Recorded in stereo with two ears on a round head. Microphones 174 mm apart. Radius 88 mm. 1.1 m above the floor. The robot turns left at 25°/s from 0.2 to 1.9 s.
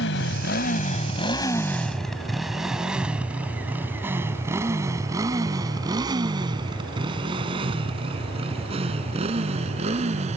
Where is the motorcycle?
60° left (ahead or behind); by 10.4 s 35° right (ahead or behind).